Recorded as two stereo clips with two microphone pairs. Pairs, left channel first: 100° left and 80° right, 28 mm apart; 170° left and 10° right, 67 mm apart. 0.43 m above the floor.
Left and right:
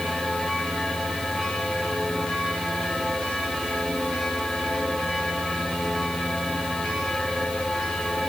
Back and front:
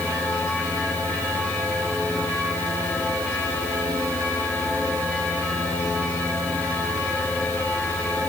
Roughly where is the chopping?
I don't hear chopping.